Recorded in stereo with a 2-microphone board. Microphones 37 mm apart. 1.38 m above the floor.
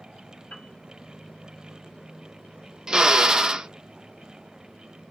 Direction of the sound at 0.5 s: 35° left (ahead or behind).